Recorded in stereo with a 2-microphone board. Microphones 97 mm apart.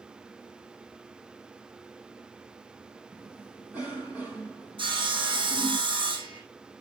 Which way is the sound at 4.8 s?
60° right (ahead or behind).